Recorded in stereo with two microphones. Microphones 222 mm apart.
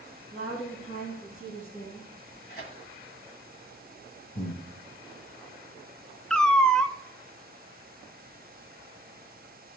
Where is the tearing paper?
45° left (ahead or behind), 2 m.